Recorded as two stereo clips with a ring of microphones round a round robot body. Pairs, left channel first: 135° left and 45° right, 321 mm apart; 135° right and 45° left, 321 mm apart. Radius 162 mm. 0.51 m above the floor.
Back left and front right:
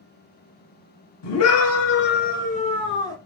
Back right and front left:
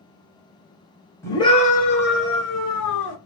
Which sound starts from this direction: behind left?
A scream, at 1.2 s.